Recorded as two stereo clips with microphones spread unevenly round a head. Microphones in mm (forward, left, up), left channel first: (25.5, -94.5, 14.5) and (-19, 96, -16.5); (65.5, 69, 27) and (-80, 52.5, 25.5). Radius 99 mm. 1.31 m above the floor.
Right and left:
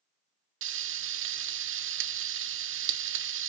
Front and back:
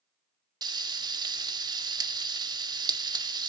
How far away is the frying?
About 1.2 m.